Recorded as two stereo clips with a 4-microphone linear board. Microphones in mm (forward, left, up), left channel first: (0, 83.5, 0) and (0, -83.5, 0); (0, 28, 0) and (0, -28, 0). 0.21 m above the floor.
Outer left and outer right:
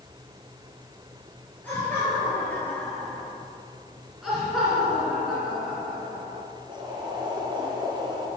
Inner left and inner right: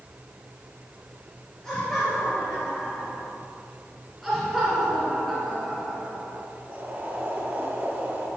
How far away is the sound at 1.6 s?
About 4 m.